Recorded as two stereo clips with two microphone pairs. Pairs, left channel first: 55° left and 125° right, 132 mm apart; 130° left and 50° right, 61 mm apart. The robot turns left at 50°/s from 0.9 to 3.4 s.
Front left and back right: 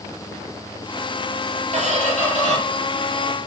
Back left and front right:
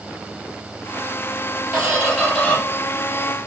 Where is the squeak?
115° right, 4.5 m; by 2.6 s 160° right, 4.5 m.